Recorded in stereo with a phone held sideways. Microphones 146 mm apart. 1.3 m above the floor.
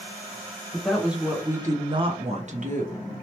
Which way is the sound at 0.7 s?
5° left (ahead or behind).